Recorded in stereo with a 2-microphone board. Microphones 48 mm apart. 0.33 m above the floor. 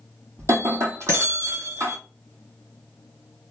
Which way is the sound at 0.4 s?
65° right (ahead or behind).